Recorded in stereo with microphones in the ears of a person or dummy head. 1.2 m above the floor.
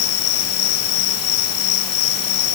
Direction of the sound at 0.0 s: 65° left (ahead or behind).